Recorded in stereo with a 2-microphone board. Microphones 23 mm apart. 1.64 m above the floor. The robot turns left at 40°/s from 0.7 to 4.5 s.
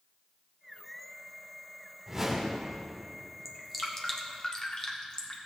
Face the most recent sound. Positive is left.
turn(degrees=30)  # may be behind; listen again after turning